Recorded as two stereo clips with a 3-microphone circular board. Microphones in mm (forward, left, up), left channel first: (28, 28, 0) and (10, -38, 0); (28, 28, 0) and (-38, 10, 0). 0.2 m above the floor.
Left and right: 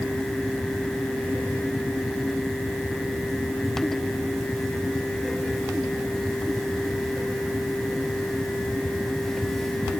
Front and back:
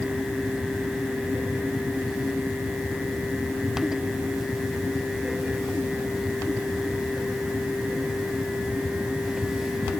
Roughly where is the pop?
I don't hear a pop.